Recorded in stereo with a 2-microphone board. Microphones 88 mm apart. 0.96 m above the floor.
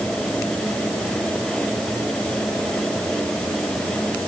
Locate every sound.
Only background noise.